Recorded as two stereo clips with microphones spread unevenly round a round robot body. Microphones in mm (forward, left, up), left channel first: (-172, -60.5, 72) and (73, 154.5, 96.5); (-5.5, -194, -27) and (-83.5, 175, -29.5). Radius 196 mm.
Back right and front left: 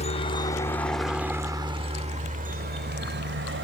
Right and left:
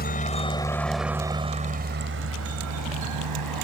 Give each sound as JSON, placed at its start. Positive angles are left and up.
{"t": 0.0, "sound": "a helicopter", "azimuth_deg": -110}